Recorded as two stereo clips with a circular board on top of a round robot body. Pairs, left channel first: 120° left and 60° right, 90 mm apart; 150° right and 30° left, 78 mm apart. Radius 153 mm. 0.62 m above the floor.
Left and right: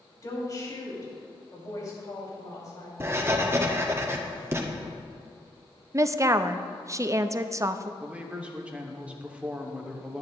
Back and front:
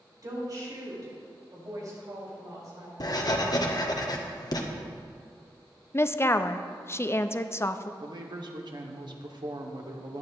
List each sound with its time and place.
0.2 s a woman speaking: 70° left, 5 m
3.0 s writing: 120° right, 1.6 m
5.9 s a woman speaking: 105° right, 0.8 m
8.0 s a man speaking: 15° left, 1.9 m